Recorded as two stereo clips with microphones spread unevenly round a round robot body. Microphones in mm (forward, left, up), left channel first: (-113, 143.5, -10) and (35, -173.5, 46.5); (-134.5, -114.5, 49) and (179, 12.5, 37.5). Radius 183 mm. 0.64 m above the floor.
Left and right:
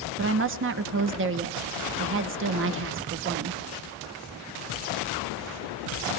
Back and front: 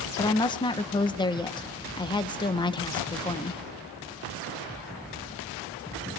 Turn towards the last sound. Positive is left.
turn(degrees=-95)